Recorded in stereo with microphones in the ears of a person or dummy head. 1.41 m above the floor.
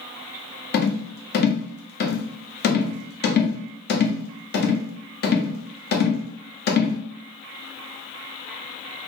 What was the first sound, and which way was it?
A rattle, 45° left (ahead or behind).